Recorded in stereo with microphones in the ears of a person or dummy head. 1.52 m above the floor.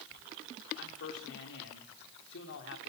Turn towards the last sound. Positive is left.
turn(degrees=65)  # may be behind; listen again after turning